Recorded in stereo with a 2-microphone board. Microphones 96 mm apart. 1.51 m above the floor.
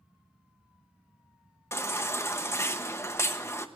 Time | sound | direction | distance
1.7 | a baby crying | 25° left (ahead or behind) | 0.9 m